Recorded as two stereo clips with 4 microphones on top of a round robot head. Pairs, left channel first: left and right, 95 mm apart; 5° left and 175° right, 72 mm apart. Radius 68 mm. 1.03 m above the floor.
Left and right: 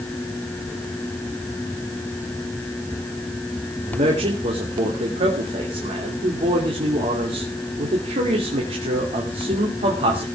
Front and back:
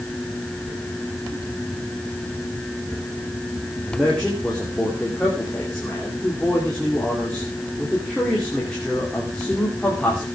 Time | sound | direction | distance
3.9 | a man speaking | 75° right | 2.5 m